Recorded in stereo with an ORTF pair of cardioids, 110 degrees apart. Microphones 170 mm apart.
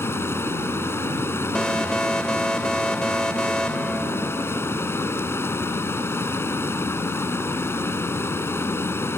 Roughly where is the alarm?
Ahead.